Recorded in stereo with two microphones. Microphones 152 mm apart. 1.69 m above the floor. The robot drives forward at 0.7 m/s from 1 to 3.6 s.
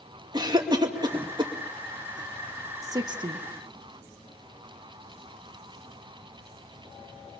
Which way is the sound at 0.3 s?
25° right (ahead or behind).